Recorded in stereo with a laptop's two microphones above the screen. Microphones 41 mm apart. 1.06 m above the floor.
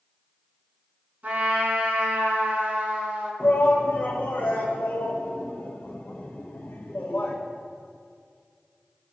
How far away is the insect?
No insect in this recording.